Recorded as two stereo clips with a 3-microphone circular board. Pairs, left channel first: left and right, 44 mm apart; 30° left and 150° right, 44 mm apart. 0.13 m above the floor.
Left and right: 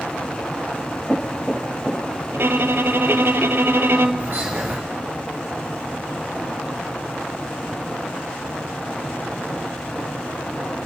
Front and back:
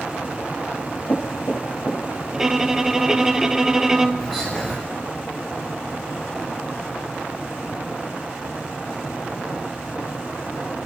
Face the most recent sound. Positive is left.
turn(degrees=-45)